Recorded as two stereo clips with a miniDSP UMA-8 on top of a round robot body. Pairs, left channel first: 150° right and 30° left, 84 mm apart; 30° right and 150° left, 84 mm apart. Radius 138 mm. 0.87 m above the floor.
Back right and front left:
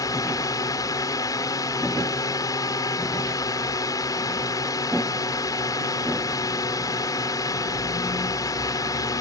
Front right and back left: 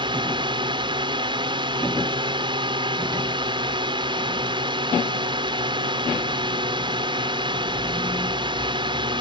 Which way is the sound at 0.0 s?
165° left.